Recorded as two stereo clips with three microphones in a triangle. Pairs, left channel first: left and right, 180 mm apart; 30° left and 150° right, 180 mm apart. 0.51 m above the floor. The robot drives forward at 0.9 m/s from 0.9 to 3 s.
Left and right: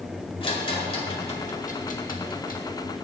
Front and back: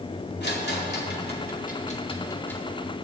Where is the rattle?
35° left, 1.6 m; by 2.6 s 115° left, 1.0 m.